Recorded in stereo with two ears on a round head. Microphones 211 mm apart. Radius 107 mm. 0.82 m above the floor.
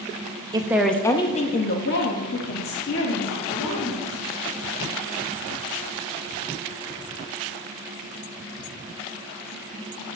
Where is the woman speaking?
15° right (ahead or behind), 0.6 m; by 4.2 s 70° left (ahead or behind), 2 m.